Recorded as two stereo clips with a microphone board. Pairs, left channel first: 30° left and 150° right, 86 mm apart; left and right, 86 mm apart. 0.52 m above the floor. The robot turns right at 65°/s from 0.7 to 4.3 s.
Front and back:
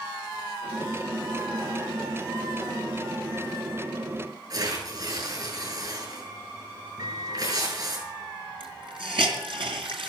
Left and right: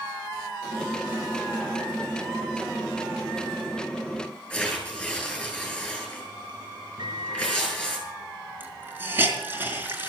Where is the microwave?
115° right, 4 m.